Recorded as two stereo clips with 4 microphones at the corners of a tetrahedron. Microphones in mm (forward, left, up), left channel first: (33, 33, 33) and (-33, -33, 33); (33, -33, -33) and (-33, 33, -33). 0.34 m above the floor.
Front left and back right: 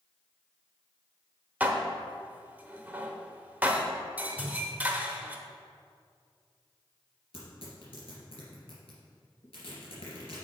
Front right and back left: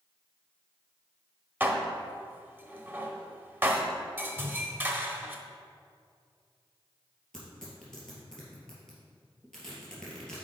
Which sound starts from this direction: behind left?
A whoosh, at 4.4 s.